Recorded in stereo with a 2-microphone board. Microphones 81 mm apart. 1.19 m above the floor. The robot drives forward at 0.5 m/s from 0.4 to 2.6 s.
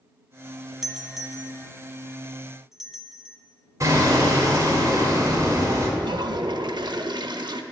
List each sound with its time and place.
0.8 s a doorbell: 5° right (ahead or behind), 0.7 m; by 3.4 s centre (ahead or behind), 1.3 m
3.8 s hammering: 40° right (ahead or behind), 1.9 m
6.0 s a toilet flushing: 65° right (ahead or behind), 0.6 m